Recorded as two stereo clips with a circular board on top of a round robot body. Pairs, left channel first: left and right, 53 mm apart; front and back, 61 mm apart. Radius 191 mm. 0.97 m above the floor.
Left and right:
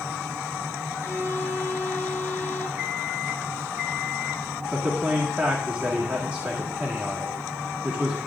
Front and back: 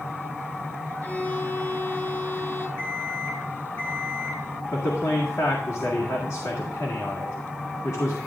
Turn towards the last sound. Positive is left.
turn(degrees=-25)